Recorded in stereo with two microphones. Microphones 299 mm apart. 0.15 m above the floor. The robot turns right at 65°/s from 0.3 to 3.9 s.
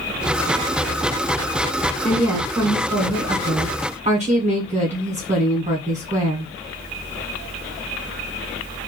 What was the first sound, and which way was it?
A woman speaking, centre (ahead or behind).